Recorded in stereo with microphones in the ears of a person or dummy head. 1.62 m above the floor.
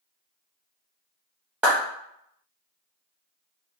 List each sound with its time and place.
1.6 s a clap: 5° right (ahead or behind), 0.6 m